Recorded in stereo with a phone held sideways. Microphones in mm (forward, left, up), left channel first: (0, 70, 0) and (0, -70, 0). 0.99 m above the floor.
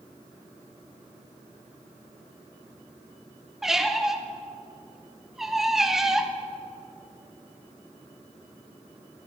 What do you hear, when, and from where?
3.6 s a squeak: 5° right (ahead or behind), 0.6 m